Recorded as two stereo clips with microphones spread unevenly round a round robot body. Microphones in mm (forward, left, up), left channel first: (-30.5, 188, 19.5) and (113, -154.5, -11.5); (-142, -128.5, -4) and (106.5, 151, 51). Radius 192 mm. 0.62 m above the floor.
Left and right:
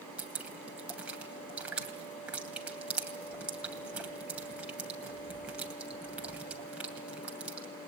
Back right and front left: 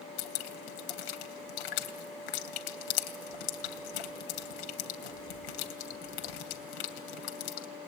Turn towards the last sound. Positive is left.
turn(degrees=-155)